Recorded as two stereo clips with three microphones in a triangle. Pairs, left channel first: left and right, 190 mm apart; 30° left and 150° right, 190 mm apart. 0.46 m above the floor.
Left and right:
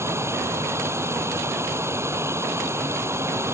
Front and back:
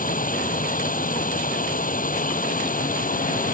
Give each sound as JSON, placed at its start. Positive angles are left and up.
{"t": 0.0, "sound": "running water", "azimuth_deg": -15}